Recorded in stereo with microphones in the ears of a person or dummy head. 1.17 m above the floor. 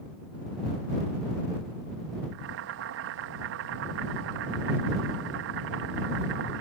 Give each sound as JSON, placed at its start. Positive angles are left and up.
{"t": 2.3, "sound": "boiling", "side_deg": -60}